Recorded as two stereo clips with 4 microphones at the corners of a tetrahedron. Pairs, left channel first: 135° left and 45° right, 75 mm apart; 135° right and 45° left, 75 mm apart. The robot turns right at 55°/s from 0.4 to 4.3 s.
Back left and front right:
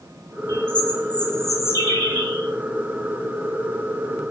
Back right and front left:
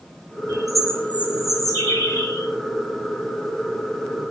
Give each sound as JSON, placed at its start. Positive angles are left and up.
{"t": 0.5, "sound": "a bird", "azimuth_deg": 120, "distance_m": 2.0}